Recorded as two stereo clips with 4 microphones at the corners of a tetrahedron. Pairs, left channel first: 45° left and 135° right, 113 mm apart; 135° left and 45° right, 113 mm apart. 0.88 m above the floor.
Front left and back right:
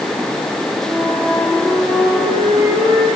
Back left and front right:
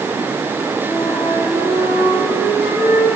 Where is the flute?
15° left, 8 m.